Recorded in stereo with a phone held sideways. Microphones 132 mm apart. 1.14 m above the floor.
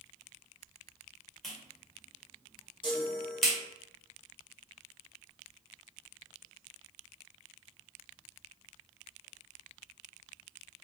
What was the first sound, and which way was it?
A clap, 5° left (ahead or behind).